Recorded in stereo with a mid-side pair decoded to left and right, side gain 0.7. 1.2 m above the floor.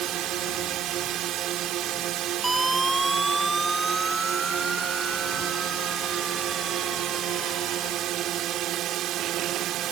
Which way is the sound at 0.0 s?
50° right.